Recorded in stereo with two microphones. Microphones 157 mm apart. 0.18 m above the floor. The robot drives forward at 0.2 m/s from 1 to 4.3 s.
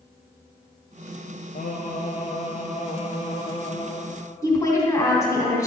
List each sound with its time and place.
1.6 s singing: 60° left (ahead or behind), 0.7 m; by 4.0 s 35° left (ahead or behind), 1.0 m
4.4 s a woman speaking: 20° left (ahead or behind), 1.1 m